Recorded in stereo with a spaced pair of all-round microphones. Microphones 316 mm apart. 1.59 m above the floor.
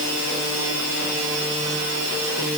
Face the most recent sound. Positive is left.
No sound to turn to.